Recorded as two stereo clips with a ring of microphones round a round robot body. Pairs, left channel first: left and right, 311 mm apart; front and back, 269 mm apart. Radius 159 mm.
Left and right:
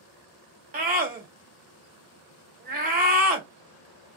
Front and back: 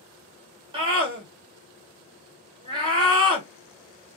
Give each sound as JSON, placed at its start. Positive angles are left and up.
{"t": 0.7, "sound": "a scream", "azimuth_deg": -125, "distance_m": 1.1}